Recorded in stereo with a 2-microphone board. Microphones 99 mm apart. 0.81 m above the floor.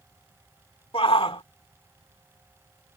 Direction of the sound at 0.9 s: 70° left (ahead or behind).